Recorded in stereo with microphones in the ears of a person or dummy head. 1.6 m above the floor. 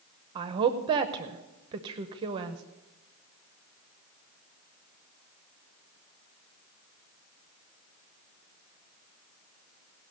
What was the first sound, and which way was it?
A woman speaking, 25° right (ahead or behind).